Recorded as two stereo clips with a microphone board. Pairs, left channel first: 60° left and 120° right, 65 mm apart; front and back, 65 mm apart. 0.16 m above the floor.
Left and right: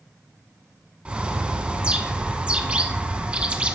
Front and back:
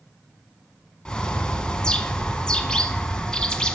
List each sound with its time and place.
1.1 s a bird: 65° right, 0.6 m